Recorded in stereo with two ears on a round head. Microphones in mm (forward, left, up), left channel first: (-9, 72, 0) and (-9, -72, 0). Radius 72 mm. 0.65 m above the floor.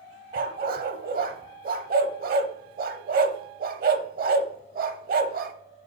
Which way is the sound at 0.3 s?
60° right (ahead or behind).